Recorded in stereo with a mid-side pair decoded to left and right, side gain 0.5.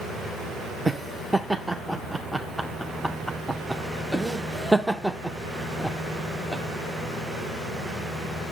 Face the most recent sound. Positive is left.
turn(degrees=-5)